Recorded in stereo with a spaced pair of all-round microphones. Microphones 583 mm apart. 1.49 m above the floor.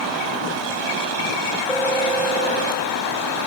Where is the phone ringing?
5° left (ahead or behind), 4 m.